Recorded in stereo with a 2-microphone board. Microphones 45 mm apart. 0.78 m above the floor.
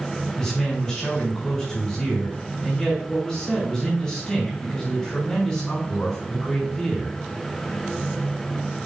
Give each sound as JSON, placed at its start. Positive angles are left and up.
{"t": 0.4, "sound": "a man speaking", "side_deg": 15, "distance_m": 4.5}